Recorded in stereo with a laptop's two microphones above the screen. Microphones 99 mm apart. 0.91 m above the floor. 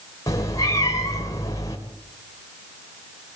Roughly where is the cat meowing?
Left.